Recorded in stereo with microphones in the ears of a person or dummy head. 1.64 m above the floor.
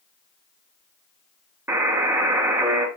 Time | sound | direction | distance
1.7 | a buzzer | 15° right (ahead or behind) | 2.0 m